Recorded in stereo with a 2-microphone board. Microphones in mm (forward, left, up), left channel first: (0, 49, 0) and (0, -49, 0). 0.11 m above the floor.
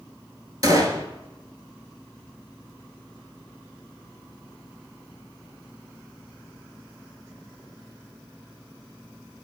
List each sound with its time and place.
0.6 s a gunshot: 40° right (ahead or behind), 0.6 m